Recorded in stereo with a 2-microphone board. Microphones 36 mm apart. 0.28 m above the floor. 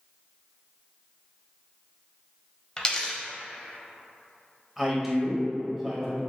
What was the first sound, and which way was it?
A dropped coin, 20° left (ahead or behind).